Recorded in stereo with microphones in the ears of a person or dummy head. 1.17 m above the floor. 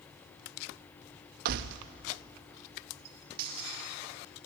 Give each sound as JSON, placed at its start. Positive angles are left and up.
{"t": 1.4, "sound": "keys jangling", "side_deg": -50, "distance_m": 0.7}